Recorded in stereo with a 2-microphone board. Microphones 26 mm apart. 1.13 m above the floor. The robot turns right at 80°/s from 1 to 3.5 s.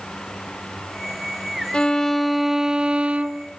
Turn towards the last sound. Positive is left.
turn(degrees=-85)